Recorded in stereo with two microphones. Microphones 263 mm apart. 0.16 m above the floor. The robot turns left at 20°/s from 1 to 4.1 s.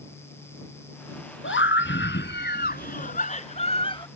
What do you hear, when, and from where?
1.4 s a scream: 75° left; by 4.1 s 25° left